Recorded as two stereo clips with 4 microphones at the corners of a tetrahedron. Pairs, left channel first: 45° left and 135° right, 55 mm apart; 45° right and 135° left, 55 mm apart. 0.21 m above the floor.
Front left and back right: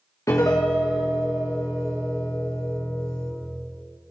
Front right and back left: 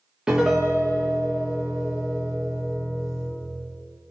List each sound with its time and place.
0.3 s a piano: 55° left, 3 m